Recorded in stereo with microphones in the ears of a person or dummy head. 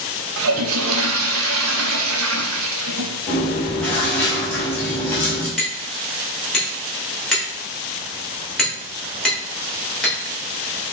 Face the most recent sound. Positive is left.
turn(degrees=5)  # may be behind; listen again after turning